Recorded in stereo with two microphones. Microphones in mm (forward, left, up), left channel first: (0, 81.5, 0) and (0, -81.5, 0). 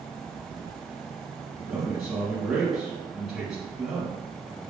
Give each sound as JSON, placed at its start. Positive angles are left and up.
{"t": 1.6, "sound": "a man speaking", "side_deg": -5, "distance_m": 1.3}